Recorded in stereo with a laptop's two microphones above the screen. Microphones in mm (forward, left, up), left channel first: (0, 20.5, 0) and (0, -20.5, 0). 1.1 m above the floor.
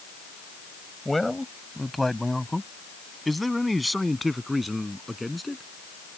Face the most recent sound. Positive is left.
turn(degrees=0)  # may be behind; listen again after turning